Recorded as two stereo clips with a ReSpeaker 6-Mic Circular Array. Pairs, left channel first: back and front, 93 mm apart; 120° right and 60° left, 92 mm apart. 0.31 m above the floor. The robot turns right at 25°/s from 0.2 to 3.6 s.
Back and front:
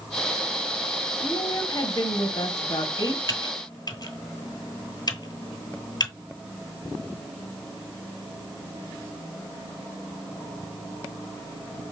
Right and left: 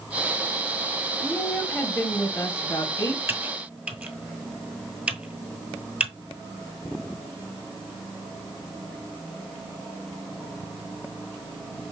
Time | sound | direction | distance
1.2 | a woman speaking | 155° left | 1.4 m
3.3 | typing on a keyboard | 125° left | 1.1 m